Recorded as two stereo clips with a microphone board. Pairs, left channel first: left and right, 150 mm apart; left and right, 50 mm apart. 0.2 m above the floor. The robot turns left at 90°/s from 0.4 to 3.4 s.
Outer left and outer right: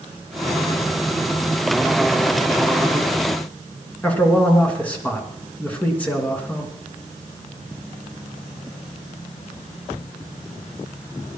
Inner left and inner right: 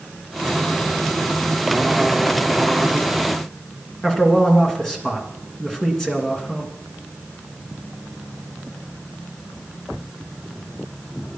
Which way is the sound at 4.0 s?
10° left (ahead or behind).